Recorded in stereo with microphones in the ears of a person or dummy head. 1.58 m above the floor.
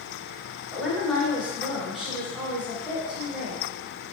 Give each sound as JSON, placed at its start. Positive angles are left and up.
{"t": 0.7, "sound": "a woman speaking", "side_deg": -5, "distance_m": 0.8}